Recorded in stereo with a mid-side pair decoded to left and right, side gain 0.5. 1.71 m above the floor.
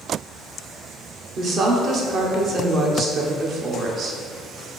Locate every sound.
1.4 s a woman speaking: 55° right, 0.9 m